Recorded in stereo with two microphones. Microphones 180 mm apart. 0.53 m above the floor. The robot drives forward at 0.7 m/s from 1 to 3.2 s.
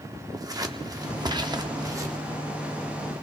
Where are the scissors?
20° right (ahead or behind), 0.6 m; by 2.2 s 15° right (ahead or behind), 0.8 m.